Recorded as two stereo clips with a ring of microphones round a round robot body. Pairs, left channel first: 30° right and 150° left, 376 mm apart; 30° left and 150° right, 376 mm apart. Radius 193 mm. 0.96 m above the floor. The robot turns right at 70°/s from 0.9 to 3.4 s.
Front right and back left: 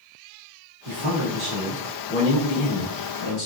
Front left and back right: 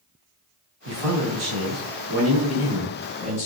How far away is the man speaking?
About 1.4 m.